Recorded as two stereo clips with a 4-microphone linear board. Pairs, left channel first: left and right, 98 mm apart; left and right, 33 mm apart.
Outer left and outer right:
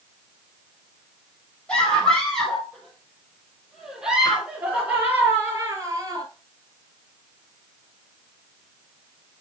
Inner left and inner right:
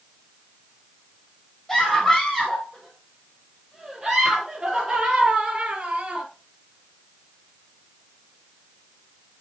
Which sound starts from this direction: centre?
A scream, at 1.7 s.